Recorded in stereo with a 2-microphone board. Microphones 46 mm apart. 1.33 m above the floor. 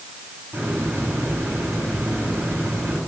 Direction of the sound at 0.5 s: 45° right (ahead or behind).